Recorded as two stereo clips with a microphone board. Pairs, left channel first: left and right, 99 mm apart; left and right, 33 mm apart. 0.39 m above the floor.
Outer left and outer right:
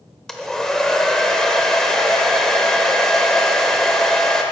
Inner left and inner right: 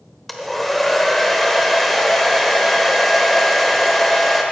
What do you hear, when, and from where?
0.3 s a hair dryer: 5° left (ahead or behind), 0.9 m